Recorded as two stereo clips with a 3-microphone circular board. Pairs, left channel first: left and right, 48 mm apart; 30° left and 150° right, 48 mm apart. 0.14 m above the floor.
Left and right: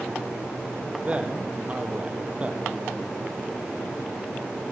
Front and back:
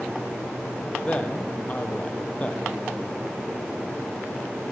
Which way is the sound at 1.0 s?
30° right.